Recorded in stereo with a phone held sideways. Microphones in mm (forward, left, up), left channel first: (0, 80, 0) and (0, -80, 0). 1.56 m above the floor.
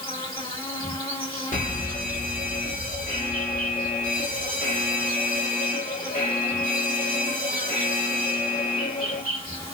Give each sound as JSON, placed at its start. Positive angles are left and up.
{"t": 0.0, "sound": "an insect", "side_deg": 60, "distance_m": 2.0}
{"t": 1.5, "sound": "a fire alarm", "side_deg": 50, "distance_m": 1.1}